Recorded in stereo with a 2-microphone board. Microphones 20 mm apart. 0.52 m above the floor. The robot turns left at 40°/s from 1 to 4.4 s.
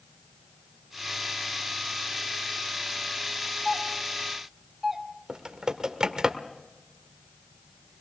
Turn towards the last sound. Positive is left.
turn(degrees=-40)  # may be behind; listen again after turning